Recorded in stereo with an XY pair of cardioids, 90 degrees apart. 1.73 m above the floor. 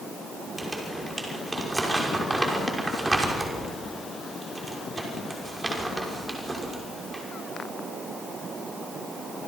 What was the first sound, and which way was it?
Crumpling, 20° right.